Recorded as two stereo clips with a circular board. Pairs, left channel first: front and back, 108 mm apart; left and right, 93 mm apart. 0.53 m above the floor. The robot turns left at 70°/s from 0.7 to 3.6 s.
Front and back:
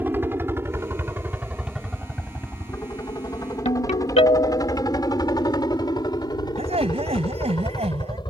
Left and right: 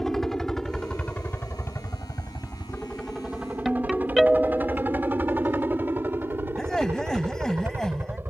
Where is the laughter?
175° left.